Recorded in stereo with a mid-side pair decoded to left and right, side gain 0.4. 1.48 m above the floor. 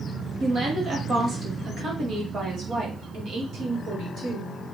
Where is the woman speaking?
45° right, 3 m; by 4.7 s 70° right, 4.5 m.